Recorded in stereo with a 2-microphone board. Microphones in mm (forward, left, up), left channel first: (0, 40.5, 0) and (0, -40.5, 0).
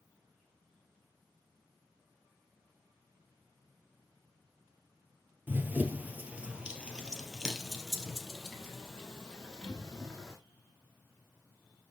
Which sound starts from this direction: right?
Running footsteps, at 5.5 s.